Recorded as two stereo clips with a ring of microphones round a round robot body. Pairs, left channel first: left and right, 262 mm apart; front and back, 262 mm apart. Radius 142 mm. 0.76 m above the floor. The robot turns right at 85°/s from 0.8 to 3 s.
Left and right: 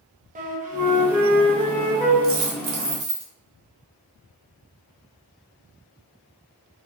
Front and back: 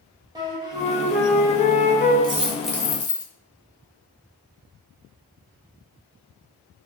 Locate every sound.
0.3 s a flute: 115° right, 0.6 m; by 2.1 s straight ahead, 0.6 m
2.2 s a dropped coin: 125° right, 0.8 m; by 3.3 s 60° right, 0.8 m